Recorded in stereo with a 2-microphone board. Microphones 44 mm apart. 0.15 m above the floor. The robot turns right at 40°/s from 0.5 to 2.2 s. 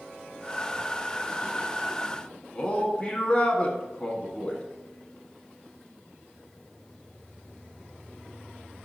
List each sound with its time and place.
2.5 s a man speaking: 25° left (ahead or behind), 1.4 m